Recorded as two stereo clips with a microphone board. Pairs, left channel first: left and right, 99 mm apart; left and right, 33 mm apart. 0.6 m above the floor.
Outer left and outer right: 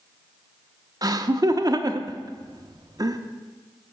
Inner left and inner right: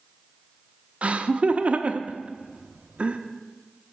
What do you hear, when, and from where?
1.0 s laughter: 40° right (ahead or behind), 0.7 m